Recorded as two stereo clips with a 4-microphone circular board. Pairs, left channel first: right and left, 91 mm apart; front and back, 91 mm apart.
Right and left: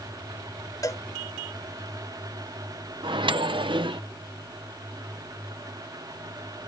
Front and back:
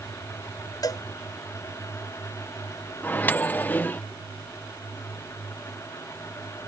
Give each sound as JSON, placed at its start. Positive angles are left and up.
{"t": 0.8, "sound": "a cowbell", "azimuth_deg": -45}
{"t": 3.0, "sound": "a microwave", "azimuth_deg": 70}